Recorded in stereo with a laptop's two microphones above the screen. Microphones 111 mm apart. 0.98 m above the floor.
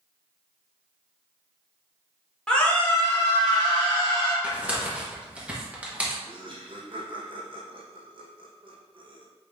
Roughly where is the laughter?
Right.